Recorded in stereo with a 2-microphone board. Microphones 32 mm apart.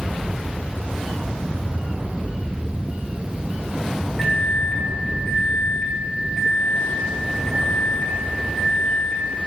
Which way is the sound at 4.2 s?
5° left (ahead or behind).